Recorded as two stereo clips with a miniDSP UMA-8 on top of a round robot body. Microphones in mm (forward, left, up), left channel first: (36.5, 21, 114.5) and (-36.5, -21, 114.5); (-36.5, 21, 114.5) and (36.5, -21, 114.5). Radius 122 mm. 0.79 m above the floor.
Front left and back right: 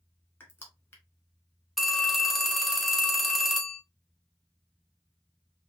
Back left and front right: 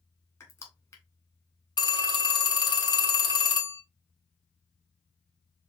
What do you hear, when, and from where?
0.4 s crushing: 95° left, 1.8 m
1.8 s a phone ringing: 120° left, 1.2 m